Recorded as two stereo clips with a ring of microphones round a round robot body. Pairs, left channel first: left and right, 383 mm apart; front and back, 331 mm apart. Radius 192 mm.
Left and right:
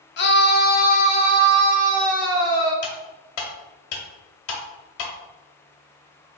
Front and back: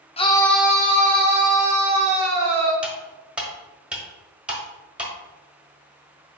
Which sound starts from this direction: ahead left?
A scream, at 0.2 s.